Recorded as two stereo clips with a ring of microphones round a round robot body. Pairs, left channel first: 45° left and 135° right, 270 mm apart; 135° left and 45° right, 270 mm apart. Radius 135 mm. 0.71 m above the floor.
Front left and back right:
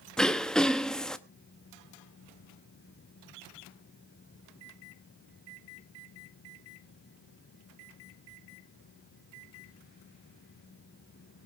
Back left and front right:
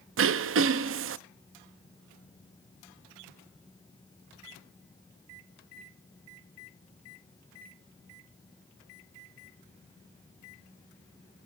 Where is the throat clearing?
40° right, 0.7 m.